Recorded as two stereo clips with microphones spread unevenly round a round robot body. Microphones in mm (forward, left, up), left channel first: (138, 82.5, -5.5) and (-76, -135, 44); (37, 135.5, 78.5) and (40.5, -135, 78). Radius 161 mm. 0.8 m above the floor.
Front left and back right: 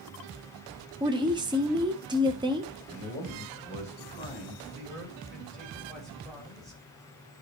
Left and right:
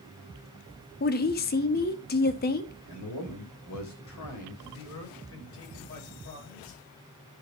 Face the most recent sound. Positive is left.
turn(degrees=130)